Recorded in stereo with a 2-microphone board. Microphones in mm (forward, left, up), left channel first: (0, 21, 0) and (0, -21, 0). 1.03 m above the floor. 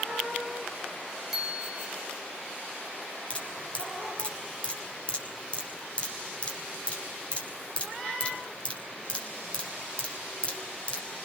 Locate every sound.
1.3 s a bicycle bell: 5° right (ahead or behind), 4 m
3.3 s dripping: 25° left (ahead or behind), 5 m